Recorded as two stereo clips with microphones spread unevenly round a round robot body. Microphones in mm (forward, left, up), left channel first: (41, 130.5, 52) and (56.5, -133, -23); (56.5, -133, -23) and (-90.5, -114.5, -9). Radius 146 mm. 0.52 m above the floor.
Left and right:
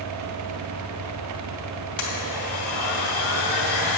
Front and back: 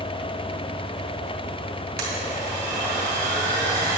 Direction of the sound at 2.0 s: 140° left.